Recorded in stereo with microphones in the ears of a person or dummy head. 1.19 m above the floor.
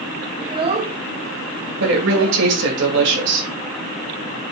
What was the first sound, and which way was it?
A child speaking, 15° right (ahead or behind).